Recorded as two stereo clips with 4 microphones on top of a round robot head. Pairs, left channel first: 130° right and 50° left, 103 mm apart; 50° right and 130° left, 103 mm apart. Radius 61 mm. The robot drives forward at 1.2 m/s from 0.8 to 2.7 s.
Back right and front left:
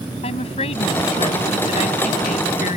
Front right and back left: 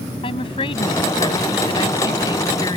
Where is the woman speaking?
95° right; by 2.8 s 105° right.